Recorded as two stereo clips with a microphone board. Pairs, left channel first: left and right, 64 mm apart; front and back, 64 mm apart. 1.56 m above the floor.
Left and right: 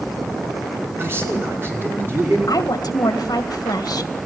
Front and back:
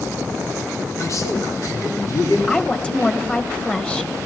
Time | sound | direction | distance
1.0 | a man speaking | 35° right | 5.5 m
2.5 | a woman speaking | 75° left | 1.9 m